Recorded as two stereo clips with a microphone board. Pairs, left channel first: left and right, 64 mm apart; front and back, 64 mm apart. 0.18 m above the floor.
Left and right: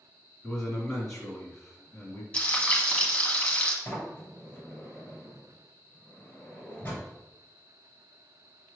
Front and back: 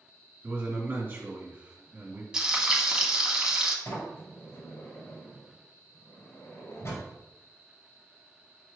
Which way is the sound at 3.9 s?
35° left.